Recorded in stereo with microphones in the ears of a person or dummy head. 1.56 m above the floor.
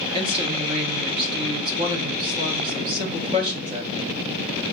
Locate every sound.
0.1 s a woman speaking: 25° right (ahead or behind), 0.7 m